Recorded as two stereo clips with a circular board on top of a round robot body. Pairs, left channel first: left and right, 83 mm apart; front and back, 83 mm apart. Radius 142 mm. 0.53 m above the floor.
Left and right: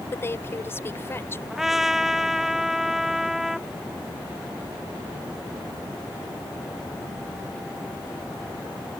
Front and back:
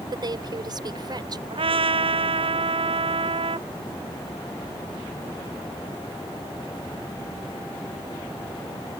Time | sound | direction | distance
0.1 | a woman speaking | 150° left | ?
1.5 | a trumpet | 175° right | ?